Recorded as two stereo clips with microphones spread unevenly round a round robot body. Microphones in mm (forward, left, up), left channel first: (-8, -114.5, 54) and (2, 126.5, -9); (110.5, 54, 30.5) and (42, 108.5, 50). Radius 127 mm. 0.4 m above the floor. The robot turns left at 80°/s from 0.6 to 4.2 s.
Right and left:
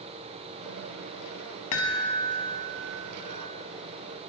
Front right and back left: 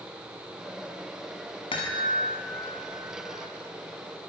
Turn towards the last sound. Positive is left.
turn(degrees=105)